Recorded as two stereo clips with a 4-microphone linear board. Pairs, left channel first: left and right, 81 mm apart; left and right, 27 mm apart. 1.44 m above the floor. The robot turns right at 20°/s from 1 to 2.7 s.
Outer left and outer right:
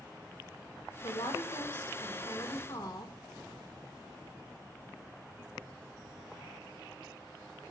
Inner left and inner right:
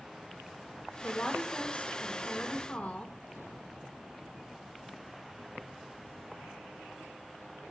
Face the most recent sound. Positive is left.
turn(degrees=125)